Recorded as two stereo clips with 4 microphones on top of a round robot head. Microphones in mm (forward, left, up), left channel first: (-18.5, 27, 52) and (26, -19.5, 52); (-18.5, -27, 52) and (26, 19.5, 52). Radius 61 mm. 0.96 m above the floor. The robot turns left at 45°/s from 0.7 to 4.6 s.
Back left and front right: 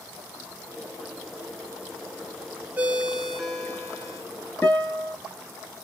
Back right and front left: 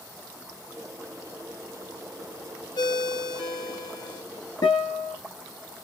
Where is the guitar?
160° right, 1.4 m.